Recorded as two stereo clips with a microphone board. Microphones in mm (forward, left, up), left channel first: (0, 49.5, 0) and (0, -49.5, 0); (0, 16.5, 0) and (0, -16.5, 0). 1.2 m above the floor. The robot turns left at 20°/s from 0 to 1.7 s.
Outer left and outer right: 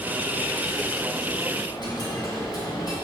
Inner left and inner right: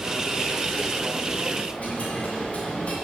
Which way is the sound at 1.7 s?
50° left (ahead or behind).